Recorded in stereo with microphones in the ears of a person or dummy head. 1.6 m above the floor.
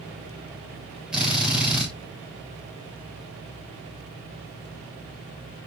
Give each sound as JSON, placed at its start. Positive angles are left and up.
{"t": 1.1, "sound": "a drill", "side_deg": -10, "distance_m": 8.5}